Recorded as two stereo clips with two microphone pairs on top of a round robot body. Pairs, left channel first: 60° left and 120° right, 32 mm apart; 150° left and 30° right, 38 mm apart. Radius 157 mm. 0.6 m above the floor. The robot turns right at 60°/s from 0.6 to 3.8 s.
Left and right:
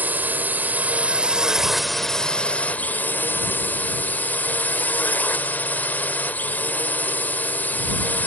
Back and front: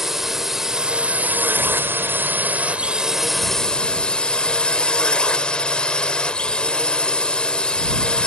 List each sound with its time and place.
0.0 s a drone: 105° right; by 8.3 s 85° left